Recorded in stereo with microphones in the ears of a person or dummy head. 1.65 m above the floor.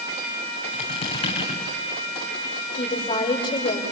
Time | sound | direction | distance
0.7 | a squeak | 30° left (ahead or behind) | 7 m
2.8 | a woman speaking | 25° left (ahead or behind) | 6.5 m